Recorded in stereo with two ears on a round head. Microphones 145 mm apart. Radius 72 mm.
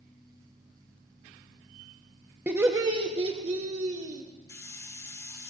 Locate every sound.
2.5 s laughter: 10° right (ahead or behind), 1.0 m; by 4.2 s 50° right (ahead or behind), 1.8 m
4.5 s a hiss: 20° left (ahead or behind), 1.2 m